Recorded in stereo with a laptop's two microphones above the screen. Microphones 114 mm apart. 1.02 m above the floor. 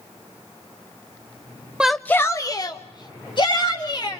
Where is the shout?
10° right (ahead or behind), 0.6 m; by 4.2 s 45° left (ahead or behind), 3 m.